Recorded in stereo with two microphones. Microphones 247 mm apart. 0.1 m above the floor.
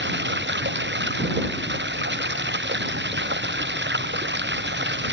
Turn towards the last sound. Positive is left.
turn(degrees=-45)  # may be behind; listen again after turning